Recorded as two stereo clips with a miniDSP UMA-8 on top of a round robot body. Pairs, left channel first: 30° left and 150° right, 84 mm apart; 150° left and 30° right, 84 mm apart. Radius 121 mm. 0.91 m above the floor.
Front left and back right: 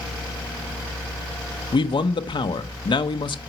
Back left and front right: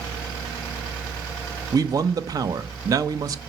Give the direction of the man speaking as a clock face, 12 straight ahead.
12 o'clock.